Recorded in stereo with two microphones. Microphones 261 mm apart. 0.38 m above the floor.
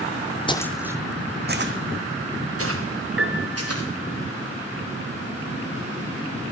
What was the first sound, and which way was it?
Footsteps, 20° left (ahead or behind).